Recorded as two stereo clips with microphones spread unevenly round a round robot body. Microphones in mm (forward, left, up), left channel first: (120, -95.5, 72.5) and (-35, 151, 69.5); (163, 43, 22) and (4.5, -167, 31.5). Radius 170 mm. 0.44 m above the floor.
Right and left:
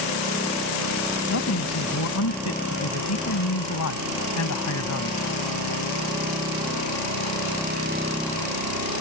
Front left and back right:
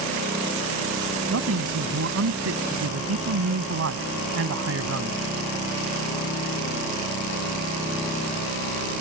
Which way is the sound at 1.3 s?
100° right.